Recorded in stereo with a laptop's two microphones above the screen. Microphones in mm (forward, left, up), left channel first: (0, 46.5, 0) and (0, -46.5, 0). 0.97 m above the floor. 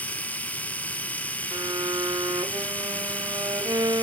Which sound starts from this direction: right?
A violin, at 1.5 s.